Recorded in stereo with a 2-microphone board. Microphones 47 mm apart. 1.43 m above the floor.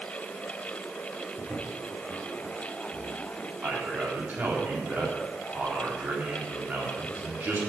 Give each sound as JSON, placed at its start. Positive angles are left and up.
{"t": 1.4, "sound": "footsteps", "side_deg": -35, "distance_m": 5.0}
{"t": 3.6, "sound": "a man speaking", "side_deg": -35, "distance_m": 4.0}